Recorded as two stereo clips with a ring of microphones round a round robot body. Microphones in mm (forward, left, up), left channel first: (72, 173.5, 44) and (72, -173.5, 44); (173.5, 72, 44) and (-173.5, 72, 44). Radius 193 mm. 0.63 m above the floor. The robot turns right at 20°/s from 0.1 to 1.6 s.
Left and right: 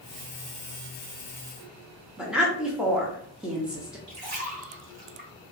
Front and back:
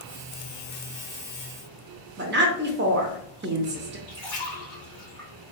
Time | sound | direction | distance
2.2 | a woman speaking | 175° right | 0.6 m
4.1 | a splash | 85° right | 1.5 m